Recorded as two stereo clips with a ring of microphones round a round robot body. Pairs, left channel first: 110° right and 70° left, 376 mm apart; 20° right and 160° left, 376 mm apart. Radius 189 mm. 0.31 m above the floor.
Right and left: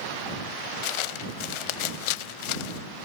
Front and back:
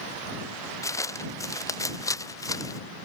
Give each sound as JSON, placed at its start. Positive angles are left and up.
{"t": 0.8, "sound": "footsteps", "azimuth_deg": -105}